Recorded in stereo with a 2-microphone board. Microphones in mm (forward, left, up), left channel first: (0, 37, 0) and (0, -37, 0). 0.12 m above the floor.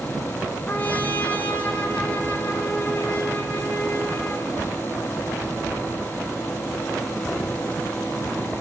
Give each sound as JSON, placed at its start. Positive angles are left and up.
{"t": 0.7, "sound": "a trumpet", "side_deg": 20, "distance_m": 1.8}